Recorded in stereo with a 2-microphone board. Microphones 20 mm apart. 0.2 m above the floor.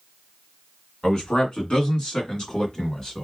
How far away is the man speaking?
About 2.5 m.